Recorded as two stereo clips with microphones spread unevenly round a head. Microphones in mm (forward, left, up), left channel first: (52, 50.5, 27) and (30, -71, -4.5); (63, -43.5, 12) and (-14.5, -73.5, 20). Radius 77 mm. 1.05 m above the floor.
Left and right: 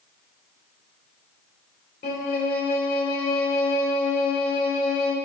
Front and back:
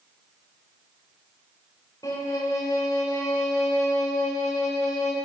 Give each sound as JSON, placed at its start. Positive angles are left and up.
{"t": 2.0, "sound": "a violin", "azimuth_deg": 90, "distance_m": 4.0}